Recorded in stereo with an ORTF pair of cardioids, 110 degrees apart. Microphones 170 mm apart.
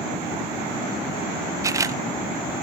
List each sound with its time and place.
1.6 s a camera shutter: 20° right, 0.6 m